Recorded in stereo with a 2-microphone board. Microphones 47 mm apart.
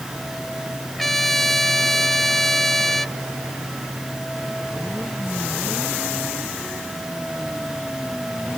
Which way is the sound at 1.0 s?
5° left (ahead or behind).